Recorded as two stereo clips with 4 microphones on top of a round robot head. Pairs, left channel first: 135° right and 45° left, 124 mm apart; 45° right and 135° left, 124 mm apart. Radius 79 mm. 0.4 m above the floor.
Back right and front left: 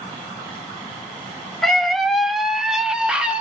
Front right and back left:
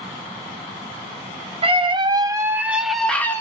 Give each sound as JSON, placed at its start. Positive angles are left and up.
{"t": 1.6, "sound": "a scream", "azimuth_deg": 135, "distance_m": 1.5}